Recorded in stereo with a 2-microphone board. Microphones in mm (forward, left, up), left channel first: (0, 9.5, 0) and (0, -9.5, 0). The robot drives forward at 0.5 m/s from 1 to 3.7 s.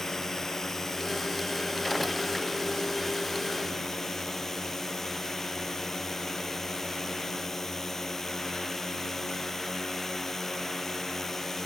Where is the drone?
30° left (ahead or behind); by 11.7 s 25° left (ahead or behind).